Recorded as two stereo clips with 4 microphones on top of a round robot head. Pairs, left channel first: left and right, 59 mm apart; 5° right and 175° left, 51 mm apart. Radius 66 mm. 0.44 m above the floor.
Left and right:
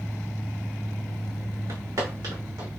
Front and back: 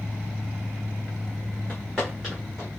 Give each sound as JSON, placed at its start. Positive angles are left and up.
{"t": 1.7, "sound": "footsteps", "azimuth_deg": -105, "distance_m": 2.5}